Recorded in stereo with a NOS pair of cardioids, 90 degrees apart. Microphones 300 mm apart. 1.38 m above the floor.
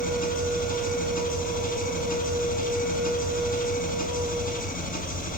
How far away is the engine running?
About 8 m.